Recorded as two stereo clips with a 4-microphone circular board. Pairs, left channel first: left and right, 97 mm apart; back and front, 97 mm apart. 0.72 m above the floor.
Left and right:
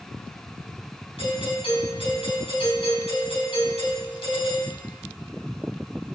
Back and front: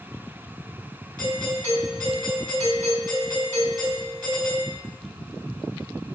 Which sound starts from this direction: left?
A doorbell, at 1.2 s.